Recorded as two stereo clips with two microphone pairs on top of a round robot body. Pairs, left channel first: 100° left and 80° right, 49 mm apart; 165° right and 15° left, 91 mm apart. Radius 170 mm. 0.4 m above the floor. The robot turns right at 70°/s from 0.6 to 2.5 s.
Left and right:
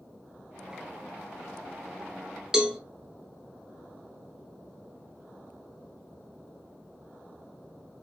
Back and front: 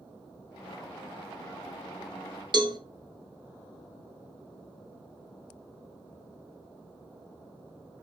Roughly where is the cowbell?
Ahead.